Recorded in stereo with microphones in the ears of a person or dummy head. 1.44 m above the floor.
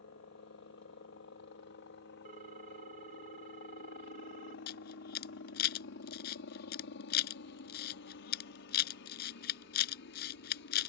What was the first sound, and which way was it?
A helicopter, 55° left (ahead or behind).